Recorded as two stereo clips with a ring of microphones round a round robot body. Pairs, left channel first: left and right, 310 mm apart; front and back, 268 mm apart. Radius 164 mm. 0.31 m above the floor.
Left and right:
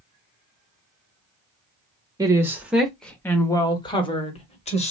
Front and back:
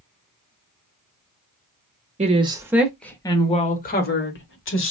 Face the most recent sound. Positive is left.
turn(degrees=25)